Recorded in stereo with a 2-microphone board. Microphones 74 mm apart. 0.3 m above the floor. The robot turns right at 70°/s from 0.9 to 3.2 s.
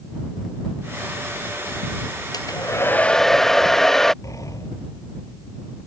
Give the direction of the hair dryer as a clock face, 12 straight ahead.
8 o'clock.